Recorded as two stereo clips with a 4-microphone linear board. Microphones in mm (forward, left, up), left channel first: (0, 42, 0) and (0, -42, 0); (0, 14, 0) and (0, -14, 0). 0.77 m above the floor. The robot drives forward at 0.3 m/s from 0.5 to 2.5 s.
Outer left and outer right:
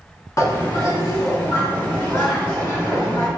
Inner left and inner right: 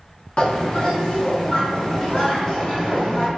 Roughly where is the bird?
Left.